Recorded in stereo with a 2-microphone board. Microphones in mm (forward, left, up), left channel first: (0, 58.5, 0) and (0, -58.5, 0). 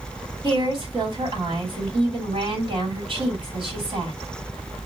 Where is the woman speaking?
45° right (ahead or behind), 2 m.